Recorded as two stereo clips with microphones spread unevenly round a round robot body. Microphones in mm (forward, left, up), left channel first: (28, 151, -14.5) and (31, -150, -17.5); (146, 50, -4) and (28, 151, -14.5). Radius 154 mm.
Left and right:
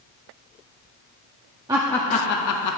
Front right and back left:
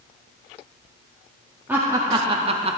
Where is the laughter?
155° right, 0.6 m; by 2.8 s 100° left, 0.8 m.